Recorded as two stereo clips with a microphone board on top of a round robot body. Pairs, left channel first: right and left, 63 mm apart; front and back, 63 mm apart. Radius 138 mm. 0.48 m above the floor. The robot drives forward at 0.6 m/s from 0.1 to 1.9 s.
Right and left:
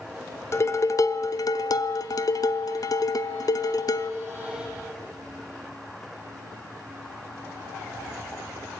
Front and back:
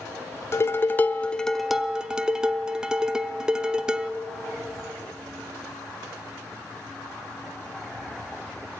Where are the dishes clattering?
45° right, 1.0 m; by 4.1 s 100° right, 0.8 m.